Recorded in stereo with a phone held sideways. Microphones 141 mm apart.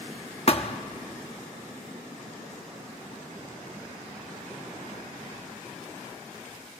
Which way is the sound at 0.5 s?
45° left (ahead or behind).